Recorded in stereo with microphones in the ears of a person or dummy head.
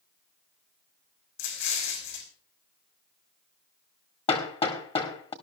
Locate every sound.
1.4 s an explosion: 60° left (ahead or behind), 4 m
4.3 s hammering: 25° left (ahead or behind), 1.6 m